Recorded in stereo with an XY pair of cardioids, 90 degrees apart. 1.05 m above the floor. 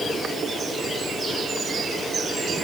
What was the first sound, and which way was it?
Only background noise.